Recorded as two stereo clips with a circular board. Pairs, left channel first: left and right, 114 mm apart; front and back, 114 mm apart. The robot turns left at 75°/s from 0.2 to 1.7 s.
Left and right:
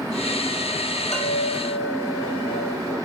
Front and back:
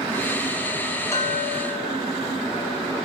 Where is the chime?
65° left, 5.5 m; by 3.0 s 20° left, 5.5 m.